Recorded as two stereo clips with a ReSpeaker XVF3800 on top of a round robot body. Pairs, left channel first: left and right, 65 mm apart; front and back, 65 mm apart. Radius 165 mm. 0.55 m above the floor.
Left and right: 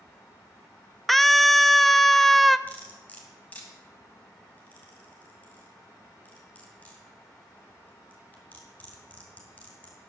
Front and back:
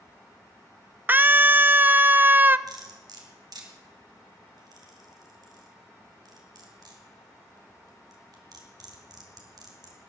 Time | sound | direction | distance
1.1 | a scream | 175° left | 0.6 m
2.7 | cutlery clinking | 160° left | 2.5 m